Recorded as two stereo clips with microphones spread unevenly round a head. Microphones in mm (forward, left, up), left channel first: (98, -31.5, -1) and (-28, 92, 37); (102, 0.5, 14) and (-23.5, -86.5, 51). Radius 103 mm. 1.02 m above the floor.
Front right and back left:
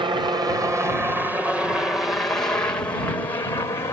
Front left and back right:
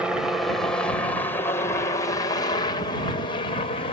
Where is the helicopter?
100° left; by 3.9 s 15° left.